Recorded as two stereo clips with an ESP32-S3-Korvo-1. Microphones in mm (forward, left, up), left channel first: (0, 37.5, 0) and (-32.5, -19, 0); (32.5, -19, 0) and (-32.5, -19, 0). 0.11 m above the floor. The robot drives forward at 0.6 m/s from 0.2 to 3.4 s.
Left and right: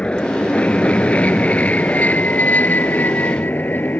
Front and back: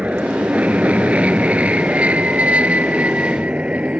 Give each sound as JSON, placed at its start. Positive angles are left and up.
{"t": 0.0, "sound": "an aircraft", "azimuth_deg": 125}